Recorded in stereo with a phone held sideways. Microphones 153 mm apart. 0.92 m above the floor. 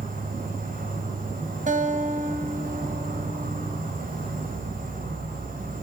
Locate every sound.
0.0 s an insect: 65° right (ahead or behind), 4 m
1.7 s a guitar: 60° right (ahead or behind), 2 m